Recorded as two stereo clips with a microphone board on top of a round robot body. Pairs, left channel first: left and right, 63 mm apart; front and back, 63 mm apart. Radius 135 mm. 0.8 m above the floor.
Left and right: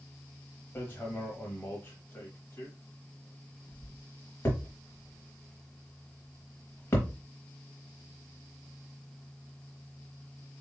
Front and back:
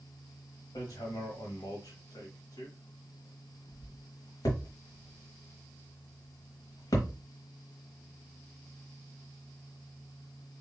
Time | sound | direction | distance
0.8 | hammering | 30° left | 1.0 m